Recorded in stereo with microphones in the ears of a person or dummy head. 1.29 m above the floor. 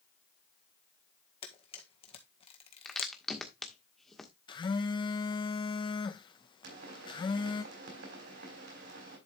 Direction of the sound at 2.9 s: 5° left (ahead or behind).